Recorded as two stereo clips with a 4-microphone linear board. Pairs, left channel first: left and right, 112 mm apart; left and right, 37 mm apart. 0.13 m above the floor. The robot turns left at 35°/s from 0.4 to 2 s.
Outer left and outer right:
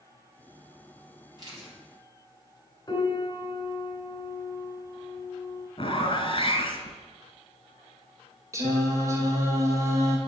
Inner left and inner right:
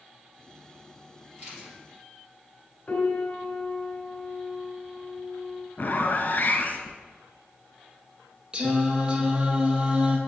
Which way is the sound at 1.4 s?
35° right (ahead or behind).